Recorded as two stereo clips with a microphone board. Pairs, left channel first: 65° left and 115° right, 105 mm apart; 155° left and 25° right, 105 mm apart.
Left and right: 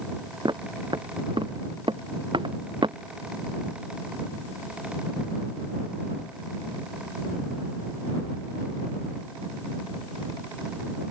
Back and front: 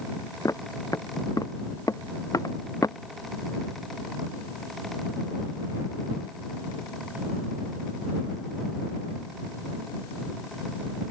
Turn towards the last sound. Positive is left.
turn(degrees=-150)